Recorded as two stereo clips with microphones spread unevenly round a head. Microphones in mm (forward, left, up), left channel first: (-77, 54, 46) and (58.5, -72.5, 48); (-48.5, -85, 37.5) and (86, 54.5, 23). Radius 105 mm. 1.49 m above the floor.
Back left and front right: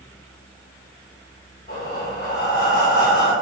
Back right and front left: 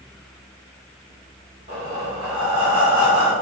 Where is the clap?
No clap in this recording.